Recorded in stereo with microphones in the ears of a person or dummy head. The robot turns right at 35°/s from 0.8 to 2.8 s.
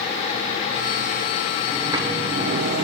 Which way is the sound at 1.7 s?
165° right.